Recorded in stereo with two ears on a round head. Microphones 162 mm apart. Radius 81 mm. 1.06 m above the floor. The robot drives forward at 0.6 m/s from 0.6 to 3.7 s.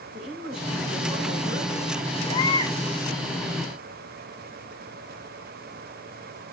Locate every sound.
0.1 s a woman speaking: 70° right (ahead or behind), 5.5 m; by 2.1 s 60° right (ahead or behind), 6 m
2.3 s a baby crying: 20° left (ahead or behind), 4.5 m; by 2.8 s 15° left (ahead or behind), 5 m